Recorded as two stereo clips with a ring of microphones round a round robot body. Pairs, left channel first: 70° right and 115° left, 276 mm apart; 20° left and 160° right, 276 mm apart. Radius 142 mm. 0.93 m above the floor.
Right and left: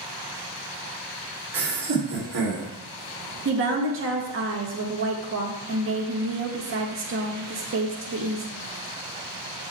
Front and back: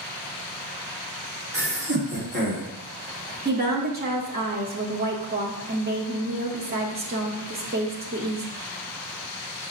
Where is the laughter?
155° left, 3 m; by 2.7 s 145° left, 2.5 m.